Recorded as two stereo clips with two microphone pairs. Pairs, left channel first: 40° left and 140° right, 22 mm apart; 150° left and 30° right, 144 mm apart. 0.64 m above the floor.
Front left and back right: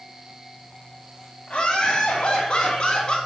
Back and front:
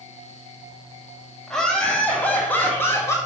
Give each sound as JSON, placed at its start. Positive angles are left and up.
{"t": 1.5, "sound": "laughter", "azimuth_deg": 65, "distance_m": 4.0}